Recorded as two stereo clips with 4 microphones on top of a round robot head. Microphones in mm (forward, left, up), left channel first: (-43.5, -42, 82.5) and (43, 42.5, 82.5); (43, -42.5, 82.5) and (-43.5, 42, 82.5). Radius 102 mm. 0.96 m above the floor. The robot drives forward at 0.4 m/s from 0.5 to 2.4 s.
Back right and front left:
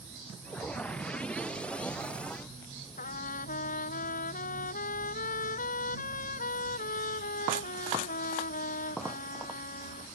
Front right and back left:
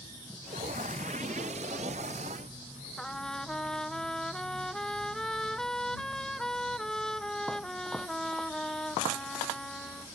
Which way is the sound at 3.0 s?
130° right.